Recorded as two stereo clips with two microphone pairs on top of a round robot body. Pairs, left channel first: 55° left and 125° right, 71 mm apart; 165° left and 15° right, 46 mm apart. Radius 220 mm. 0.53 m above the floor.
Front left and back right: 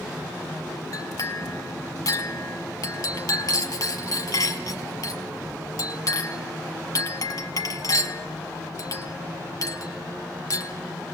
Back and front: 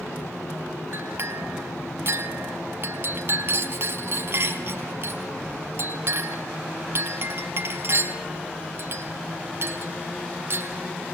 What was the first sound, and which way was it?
A clink, 25° left.